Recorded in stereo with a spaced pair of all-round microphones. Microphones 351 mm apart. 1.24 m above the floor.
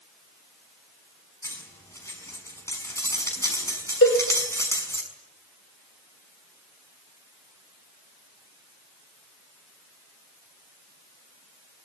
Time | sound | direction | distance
1.4 | cutlery clinking | 10° left (ahead or behind) | 6 m
4.0 | a cowbell | 40° left (ahead or behind) | 3.5 m